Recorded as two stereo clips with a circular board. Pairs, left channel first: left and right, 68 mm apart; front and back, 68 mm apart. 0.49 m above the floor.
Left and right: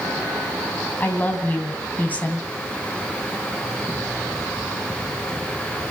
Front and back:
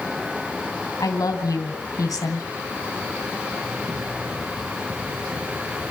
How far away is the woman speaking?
About 3 m.